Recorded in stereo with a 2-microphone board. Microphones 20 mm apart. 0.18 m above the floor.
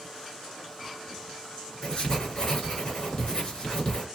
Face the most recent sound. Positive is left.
turn(degrees=40)  # may be behind; listen again after turning